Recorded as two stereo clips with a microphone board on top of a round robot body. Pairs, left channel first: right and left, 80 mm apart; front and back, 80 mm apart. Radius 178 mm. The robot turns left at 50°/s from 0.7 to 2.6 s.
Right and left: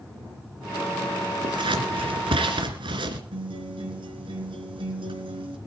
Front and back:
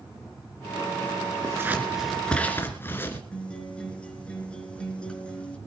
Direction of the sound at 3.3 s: 80° left.